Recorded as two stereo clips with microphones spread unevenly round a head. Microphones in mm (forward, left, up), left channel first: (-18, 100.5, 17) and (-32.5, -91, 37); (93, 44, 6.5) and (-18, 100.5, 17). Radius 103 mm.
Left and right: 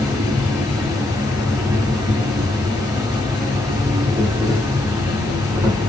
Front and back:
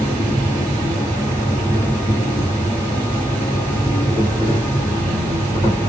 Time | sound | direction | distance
0.0 | an insect | 50° right | 1.4 m